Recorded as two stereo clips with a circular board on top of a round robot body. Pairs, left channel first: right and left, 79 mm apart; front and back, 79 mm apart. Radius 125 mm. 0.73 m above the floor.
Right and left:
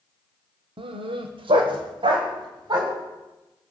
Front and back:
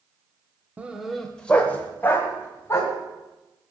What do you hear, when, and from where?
0.8 s a dog barking: 105° left, 1.0 m; by 2.9 s 60° left, 3 m